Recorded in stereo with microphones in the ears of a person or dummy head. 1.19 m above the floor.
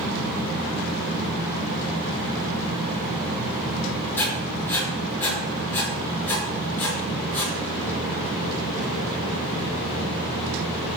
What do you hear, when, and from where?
4.2 s writing: 10° left (ahead or behind), 5 m